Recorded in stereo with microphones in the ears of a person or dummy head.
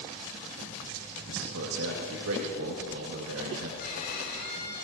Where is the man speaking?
80° right, 2 m.